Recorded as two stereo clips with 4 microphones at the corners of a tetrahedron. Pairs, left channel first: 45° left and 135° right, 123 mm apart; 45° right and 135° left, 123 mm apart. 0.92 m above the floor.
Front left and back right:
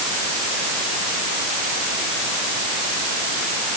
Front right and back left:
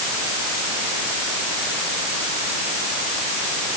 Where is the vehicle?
I don't hear a vehicle.